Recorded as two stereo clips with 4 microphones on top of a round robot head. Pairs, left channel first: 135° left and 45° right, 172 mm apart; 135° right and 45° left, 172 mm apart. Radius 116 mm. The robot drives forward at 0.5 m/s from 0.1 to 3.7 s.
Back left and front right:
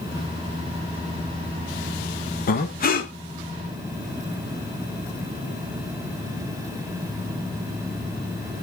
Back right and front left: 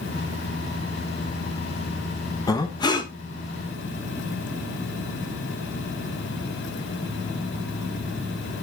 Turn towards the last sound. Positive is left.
turn(degrees=165)